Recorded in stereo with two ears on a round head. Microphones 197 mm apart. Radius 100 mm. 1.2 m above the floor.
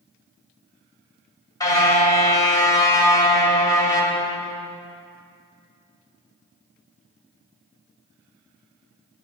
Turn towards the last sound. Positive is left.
turn(degrees=15)  # may be behind; listen again after turning